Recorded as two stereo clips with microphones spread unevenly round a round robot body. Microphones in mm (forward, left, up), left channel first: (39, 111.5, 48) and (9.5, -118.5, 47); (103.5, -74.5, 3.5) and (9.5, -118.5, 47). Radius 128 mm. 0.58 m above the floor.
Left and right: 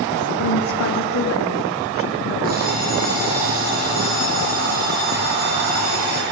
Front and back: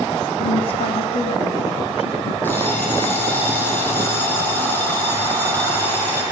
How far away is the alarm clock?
About 9 m.